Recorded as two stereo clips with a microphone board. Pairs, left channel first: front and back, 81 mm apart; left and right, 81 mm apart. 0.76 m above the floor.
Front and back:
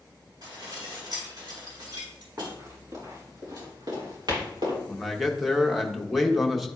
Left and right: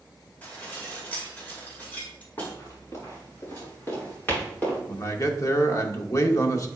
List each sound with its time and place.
0.4 s dishes clattering: 160° left, 2 m
2.4 s running footsteps: 125° left, 4 m; by 4.8 s 160° left, 5.5 m
4.9 s a man speaking: 90° left, 0.9 m